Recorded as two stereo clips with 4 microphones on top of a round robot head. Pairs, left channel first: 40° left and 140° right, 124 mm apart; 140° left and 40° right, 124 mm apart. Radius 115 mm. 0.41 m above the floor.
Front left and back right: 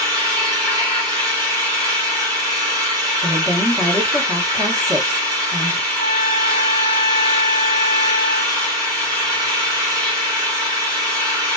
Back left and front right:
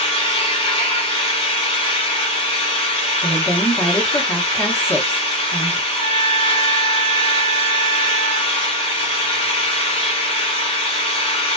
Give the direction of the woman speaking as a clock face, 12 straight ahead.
6 o'clock.